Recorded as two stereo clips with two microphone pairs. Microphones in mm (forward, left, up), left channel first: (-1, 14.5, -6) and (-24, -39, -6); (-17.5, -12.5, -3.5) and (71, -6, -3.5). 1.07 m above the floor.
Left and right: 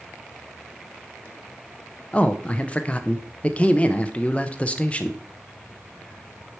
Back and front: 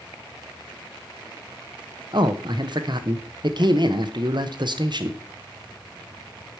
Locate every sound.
2.1 s a man speaking: straight ahead, 0.7 m